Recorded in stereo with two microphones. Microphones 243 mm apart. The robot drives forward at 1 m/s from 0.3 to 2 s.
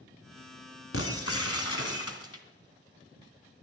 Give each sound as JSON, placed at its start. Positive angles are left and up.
{"t": 0.9, "sound": "breaking glass", "side_deg": 65, "distance_m": 2.0}